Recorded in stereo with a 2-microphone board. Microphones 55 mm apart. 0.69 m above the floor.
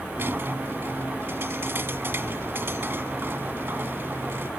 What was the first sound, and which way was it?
A squeak, 45° right (ahead or behind).